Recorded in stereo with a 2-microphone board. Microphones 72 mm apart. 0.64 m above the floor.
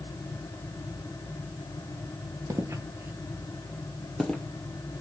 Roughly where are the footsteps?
Right.